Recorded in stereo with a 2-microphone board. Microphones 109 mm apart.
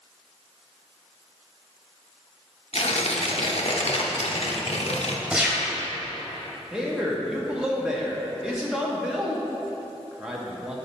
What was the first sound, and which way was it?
Tearing paper, 65° left (ahead or behind).